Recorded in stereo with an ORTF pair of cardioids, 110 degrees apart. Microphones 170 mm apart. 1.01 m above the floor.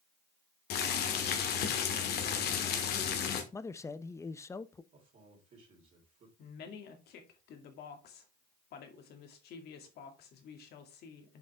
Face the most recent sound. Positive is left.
turn(degrees=70)